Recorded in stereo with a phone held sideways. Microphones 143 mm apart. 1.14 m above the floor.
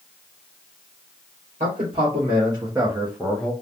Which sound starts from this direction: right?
A man speaking, at 1.6 s.